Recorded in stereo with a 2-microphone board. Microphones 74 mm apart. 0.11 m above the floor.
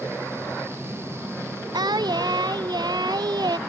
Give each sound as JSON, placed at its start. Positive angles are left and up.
{"t": 1.7, "sound": "singing", "side_deg": -65}